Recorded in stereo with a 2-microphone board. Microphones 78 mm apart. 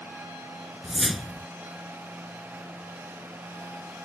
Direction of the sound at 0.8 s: Centre (ahead or behind).